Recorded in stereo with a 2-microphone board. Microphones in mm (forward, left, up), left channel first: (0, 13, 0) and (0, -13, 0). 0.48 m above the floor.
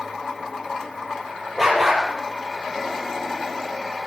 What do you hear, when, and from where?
1.6 s a dog barking: 5° right (ahead or behind), 6 m